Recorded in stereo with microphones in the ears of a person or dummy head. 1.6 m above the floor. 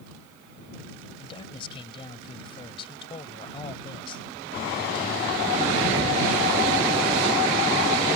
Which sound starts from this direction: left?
A man speaking, at 1.2 s.